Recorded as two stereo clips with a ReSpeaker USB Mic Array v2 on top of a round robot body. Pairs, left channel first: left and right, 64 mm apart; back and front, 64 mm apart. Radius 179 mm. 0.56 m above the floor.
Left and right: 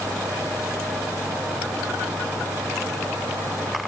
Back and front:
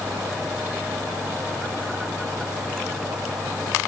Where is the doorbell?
No doorbell in this recording.